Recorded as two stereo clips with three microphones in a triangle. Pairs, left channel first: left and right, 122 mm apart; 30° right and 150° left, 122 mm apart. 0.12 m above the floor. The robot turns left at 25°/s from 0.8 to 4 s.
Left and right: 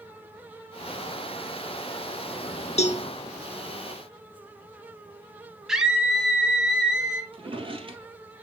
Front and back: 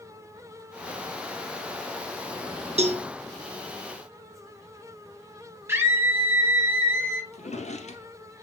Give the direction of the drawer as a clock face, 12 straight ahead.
2 o'clock.